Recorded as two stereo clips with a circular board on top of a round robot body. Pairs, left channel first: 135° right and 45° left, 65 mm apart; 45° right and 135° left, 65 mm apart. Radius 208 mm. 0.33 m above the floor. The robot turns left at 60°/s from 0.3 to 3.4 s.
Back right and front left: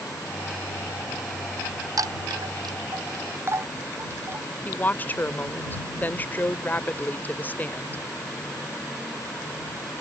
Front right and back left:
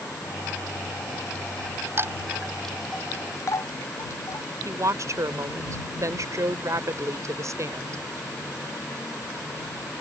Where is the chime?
80° left; by 4.5 s 5° right.